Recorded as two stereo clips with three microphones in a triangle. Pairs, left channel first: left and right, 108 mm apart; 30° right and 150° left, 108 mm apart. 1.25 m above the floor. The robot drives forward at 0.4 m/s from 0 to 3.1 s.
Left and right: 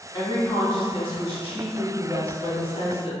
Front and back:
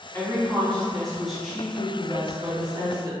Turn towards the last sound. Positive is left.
turn(degrees=110)